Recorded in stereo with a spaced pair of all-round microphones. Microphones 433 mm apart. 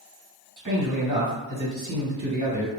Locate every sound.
0.6 s a man speaking: 45° right (ahead or behind), 1.3 m